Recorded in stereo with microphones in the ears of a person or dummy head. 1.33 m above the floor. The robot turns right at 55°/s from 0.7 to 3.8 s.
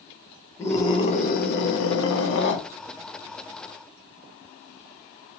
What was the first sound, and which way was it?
A scream, 15° left.